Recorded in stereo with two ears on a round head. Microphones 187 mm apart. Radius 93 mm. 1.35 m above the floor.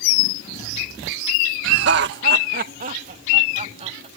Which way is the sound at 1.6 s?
60° right (ahead or behind).